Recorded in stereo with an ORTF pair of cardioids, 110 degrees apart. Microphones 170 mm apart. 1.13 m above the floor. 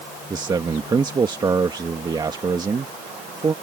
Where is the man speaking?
25° right.